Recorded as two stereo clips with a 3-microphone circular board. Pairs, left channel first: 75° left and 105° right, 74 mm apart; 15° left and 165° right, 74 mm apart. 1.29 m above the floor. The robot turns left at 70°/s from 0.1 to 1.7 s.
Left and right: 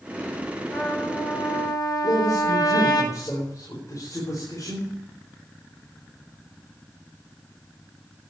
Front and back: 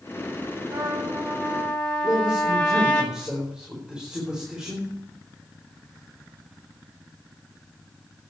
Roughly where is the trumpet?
Behind.